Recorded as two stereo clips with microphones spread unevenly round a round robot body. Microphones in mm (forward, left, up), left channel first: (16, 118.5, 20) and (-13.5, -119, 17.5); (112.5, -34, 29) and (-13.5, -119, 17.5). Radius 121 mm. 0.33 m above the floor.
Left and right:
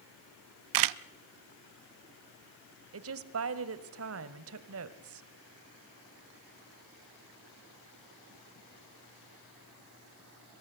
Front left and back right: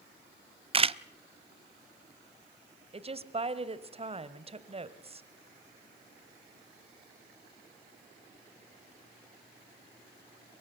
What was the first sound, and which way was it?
A camera shutter, 85° right.